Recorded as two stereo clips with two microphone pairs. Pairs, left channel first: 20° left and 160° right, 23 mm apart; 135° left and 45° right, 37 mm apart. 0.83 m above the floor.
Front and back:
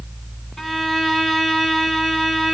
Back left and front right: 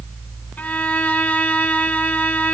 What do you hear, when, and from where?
0.6 s a violin: 95° left, 2.5 m